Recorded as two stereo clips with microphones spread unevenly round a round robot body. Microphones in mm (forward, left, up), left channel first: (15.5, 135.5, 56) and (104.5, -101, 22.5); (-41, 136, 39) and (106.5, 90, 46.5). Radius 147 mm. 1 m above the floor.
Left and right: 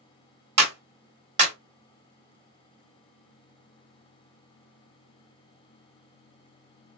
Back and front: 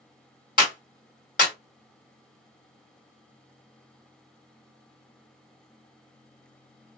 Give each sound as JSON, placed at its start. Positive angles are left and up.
{"t": 0.6, "sound": "a clap", "azimuth_deg": -140, "distance_m": 1.5}